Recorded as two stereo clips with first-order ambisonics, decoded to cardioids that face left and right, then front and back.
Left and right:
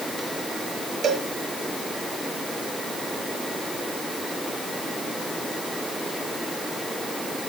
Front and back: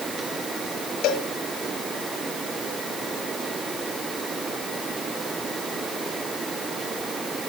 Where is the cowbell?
30° right, 2 m.